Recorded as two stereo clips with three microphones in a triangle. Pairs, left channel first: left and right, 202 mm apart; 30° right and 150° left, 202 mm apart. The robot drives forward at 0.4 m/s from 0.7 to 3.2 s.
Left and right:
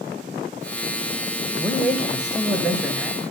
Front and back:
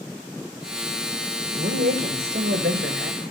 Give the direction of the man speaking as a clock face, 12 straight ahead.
6 o'clock.